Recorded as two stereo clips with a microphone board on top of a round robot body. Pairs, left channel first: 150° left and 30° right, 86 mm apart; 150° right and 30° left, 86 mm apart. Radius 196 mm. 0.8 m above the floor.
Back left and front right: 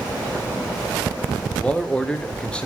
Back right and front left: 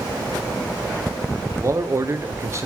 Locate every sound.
1.6 s a man speaking: 75° left, 1.0 m